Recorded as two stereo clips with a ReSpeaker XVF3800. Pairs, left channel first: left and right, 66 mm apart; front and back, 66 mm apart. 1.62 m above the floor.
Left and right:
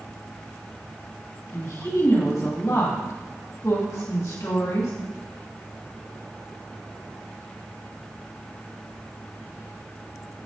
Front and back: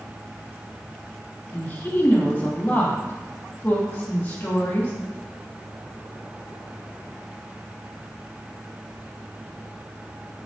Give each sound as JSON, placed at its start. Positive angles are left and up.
{"t": 1.5, "sound": "a woman speaking", "azimuth_deg": 65, "distance_m": 2.5}